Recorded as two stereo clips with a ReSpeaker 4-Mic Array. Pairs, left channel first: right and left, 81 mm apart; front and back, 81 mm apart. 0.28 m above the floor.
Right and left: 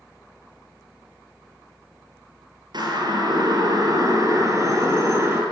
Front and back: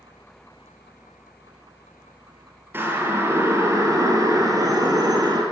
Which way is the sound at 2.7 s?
115° left.